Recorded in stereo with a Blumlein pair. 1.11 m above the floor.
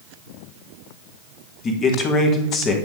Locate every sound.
1.6 s a man speaking: 25° left, 1.7 m